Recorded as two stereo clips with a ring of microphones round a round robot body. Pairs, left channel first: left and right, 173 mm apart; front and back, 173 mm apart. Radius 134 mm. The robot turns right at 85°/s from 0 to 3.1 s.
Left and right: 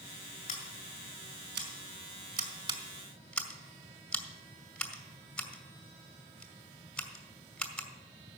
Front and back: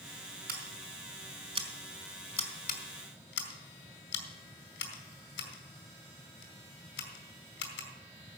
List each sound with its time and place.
0.5 s scissors: 140° left, 2 m; by 7.9 s 5° left, 2 m